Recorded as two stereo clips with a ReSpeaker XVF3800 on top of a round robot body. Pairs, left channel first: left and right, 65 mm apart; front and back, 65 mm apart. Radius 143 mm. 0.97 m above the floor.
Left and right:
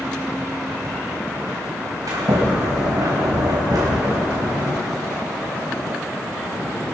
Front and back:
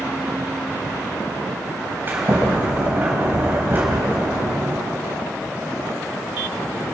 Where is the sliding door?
120° right, 3 m.